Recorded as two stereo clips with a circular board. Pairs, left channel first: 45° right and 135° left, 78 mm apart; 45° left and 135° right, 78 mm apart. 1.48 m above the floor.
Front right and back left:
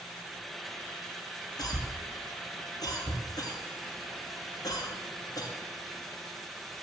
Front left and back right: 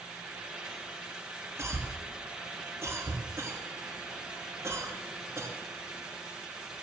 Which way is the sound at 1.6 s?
80° right.